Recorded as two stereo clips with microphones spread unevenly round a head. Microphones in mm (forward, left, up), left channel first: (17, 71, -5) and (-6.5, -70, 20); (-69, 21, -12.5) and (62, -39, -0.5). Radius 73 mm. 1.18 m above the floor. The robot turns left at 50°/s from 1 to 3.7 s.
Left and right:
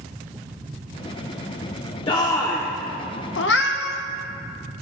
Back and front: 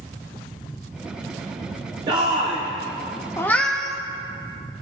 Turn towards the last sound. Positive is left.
turn(degrees=65)